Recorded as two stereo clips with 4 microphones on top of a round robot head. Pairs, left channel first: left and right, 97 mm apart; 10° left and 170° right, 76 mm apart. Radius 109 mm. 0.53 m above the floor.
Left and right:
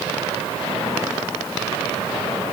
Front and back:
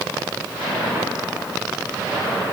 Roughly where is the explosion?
I don't hear an explosion.